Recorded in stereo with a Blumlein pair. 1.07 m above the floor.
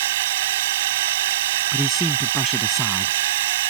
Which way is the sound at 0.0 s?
55° right.